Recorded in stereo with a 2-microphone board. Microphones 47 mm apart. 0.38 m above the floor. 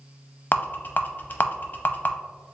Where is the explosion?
No explosion in this recording.